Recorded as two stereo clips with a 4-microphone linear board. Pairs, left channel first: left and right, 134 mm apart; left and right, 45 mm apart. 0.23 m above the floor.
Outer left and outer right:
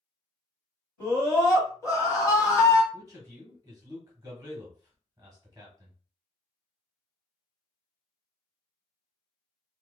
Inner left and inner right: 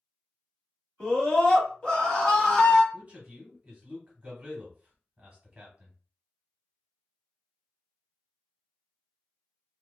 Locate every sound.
1.0 s a scream: 25° left (ahead or behind), 1.2 m
2.9 s a man speaking: 25° right (ahead or behind), 1.1 m